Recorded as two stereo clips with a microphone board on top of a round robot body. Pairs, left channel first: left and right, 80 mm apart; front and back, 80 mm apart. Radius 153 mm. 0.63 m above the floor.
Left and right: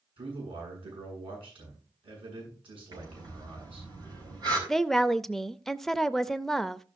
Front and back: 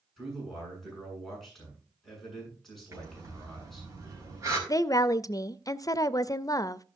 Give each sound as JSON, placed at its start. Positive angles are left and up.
{"t": 0.2, "sound": "a man speaking", "azimuth_deg": -90, "distance_m": 7.5}
{"t": 2.9, "sound": "breathing", "azimuth_deg": -125, "distance_m": 4.5}
{"t": 4.7, "sound": "a woman speaking", "azimuth_deg": 5, "distance_m": 0.6}